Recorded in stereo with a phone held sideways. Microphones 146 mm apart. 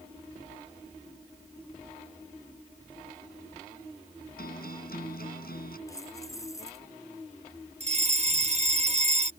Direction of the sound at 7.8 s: 50° right (ahead or behind).